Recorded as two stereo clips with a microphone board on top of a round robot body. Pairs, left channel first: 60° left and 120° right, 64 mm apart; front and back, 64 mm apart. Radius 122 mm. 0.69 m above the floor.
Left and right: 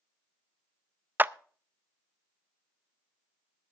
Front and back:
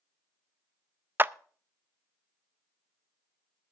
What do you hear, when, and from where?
1.2 s a clap: 155° right, 0.6 m